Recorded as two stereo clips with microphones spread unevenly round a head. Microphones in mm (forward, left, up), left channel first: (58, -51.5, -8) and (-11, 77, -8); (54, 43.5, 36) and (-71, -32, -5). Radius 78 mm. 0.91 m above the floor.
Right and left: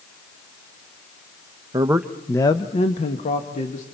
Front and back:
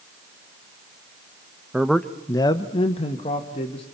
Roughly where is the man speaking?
Behind.